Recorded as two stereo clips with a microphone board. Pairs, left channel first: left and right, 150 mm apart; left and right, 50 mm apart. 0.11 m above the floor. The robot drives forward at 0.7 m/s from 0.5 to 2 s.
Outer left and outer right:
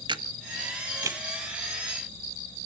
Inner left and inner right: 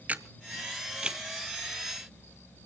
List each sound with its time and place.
0.1 s a camera shutter: 30° right (ahead or behind), 0.6 m; by 1.2 s 20° right (ahead or behind), 1.0 m